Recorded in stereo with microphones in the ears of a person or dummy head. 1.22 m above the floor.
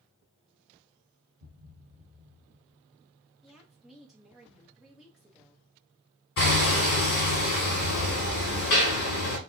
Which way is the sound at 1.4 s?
30° right (ahead or behind).